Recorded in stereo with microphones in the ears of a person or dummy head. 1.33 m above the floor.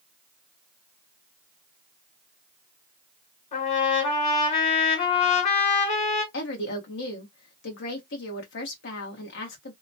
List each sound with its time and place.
3.5 s a trumpet: 50° left (ahead or behind), 2.0 m
6.3 s a woman speaking: 70° left (ahead or behind), 1.3 m